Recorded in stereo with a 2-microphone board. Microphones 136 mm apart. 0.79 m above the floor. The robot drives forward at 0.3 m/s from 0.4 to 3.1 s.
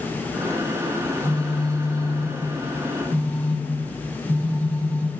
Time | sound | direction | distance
1.0 | a phone buzzing | 25° right (ahead or behind) | 1.7 m